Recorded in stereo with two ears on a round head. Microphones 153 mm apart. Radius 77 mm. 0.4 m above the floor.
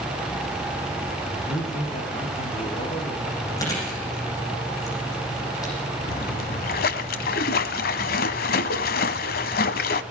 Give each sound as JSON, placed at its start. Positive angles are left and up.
{"t": 1.3, "sound": "a man speaking", "side_deg": 40, "distance_m": 8.0}
{"t": 3.6, "sound": "chewing", "side_deg": 20, "distance_m": 9.5}
{"t": 6.1, "sound": "a splash", "side_deg": 60, "distance_m": 1.2}